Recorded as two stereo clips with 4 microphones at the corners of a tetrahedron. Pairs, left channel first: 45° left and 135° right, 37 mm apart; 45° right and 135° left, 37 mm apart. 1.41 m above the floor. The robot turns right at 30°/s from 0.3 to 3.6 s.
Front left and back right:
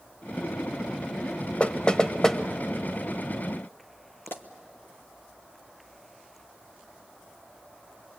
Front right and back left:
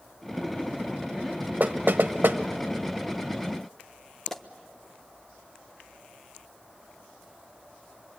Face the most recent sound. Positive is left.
turn(degrees=35)